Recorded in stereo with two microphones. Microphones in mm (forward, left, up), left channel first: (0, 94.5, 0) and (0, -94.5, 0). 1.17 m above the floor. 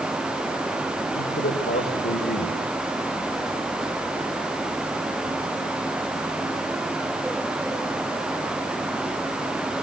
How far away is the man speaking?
About 5 m.